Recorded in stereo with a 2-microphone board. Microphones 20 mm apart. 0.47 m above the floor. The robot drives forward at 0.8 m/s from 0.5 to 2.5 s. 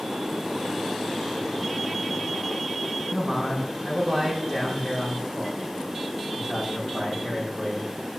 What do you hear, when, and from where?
3.1 s a man speaking: 45° right (ahead or behind), 5 m